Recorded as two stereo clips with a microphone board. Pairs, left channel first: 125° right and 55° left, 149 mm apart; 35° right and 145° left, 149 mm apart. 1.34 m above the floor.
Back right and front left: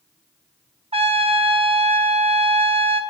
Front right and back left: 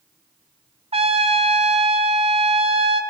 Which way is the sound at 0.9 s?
100° left.